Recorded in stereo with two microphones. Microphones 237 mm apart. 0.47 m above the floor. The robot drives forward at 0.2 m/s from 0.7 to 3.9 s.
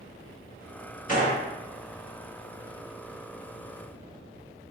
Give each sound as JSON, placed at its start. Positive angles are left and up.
{"t": 1.1, "sound": "a gunshot", "side_deg": 35, "distance_m": 1.0}